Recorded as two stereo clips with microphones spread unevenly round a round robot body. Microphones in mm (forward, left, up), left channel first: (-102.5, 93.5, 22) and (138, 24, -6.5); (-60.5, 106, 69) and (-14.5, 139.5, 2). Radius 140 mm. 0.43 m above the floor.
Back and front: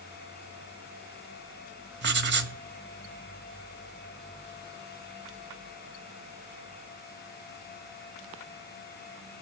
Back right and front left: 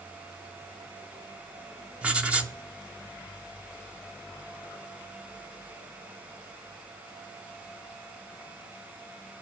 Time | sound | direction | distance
2.0 | writing | 20° left | 2.0 m